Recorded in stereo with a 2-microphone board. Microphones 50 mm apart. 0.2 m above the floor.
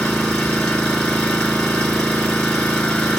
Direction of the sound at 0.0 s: 20° left (ahead or behind).